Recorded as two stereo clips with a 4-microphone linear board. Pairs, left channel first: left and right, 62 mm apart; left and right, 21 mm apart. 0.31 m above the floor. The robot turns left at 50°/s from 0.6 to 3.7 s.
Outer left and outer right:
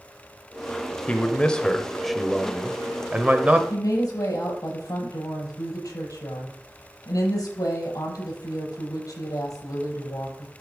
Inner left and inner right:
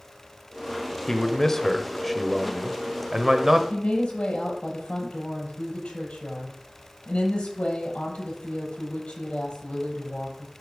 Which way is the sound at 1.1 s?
20° left (ahead or behind).